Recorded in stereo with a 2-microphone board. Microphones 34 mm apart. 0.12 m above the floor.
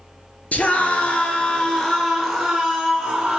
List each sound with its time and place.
0.5 s a scream: 45° left (ahead or behind), 2.5 m; by 3.4 s 5° right (ahead or behind), 4 m